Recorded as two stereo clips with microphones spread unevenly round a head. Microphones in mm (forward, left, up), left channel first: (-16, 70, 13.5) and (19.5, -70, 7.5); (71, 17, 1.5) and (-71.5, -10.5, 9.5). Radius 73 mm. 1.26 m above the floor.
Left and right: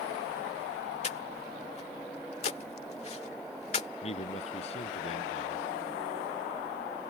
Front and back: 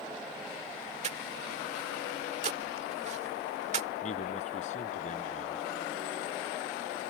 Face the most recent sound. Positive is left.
turn(degrees=55)